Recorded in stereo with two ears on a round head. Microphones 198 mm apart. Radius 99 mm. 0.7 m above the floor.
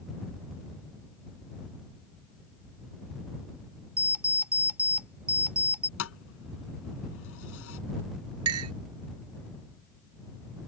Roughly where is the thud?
Left.